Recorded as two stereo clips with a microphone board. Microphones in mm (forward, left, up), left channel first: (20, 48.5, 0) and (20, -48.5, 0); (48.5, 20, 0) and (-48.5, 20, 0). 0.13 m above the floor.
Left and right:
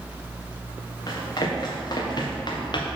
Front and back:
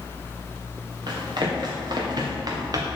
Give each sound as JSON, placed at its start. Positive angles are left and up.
{"t": 1.1, "sound": "running footsteps", "azimuth_deg": 140, "distance_m": 2.5}